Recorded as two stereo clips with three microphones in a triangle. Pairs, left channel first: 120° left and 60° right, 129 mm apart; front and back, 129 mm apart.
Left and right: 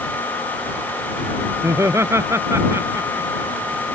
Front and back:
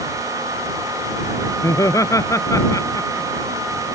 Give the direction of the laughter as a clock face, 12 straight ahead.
1 o'clock.